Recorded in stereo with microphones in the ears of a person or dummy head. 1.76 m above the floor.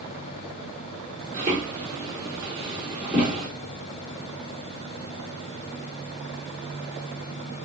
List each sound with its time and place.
1.3 s footsteps: 25° right (ahead or behind), 1.9 m; by 3.5 s 5° right (ahead or behind), 2 m